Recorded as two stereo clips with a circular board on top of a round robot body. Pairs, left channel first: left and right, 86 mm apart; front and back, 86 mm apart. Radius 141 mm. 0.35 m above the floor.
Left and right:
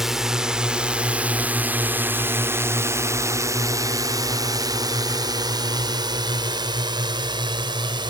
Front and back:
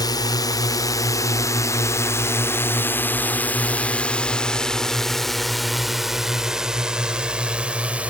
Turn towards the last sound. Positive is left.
turn(degrees=-105)